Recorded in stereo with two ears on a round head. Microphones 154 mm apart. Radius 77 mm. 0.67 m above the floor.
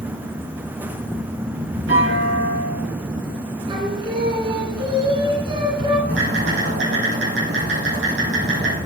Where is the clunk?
75° right (ahead or behind), 7 m.